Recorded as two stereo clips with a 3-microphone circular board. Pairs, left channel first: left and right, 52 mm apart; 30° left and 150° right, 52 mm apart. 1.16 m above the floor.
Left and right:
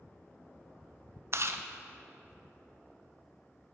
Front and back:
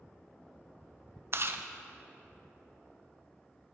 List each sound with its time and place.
1.3 s chewing: 120° right, 0.5 m